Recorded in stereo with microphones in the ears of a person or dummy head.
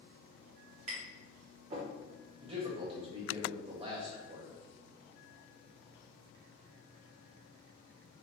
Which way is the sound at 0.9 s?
40° right (ahead or behind).